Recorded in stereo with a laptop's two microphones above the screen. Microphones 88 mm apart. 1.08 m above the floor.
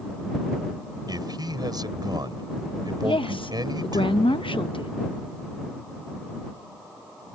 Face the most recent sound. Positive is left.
turn(degrees=75)  # may be behind; listen again after turning